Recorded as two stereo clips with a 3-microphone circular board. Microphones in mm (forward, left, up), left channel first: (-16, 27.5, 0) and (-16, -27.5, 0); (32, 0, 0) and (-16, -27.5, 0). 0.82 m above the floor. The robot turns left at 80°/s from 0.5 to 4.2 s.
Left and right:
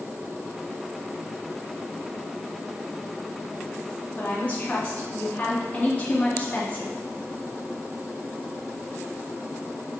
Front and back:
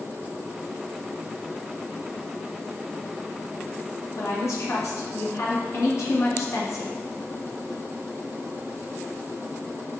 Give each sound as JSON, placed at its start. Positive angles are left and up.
{"t": 4.2, "sound": "a woman speaking", "azimuth_deg": 35, "distance_m": 0.6}